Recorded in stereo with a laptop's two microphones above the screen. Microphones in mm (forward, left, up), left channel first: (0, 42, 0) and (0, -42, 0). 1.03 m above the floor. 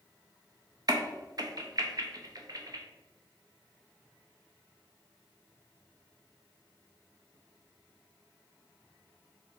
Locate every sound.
0.9 s a crack: 45° right (ahead or behind), 0.5 m